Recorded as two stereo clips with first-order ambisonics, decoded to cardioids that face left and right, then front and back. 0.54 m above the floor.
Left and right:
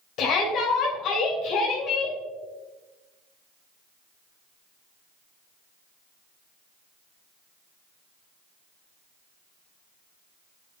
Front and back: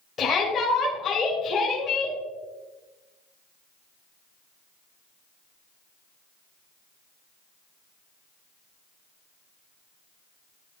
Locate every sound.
0.2 s a shout: 60° left, 1.6 m